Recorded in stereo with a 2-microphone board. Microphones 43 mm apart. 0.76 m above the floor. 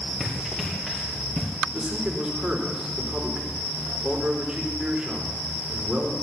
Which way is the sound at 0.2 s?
Centre (ahead or behind).